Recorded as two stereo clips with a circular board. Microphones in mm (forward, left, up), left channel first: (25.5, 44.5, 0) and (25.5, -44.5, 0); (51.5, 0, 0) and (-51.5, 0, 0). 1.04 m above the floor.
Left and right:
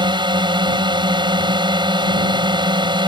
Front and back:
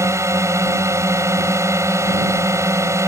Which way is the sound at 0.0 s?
120° right.